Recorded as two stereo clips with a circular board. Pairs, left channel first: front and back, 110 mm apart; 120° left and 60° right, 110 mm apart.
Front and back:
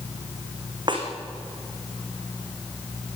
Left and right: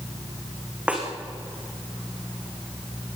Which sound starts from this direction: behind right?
A snare drum, at 0.9 s.